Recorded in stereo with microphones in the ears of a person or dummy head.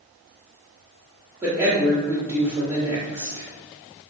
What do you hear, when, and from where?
1.4 s a woman speaking: 5° right (ahead or behind), 0.7 m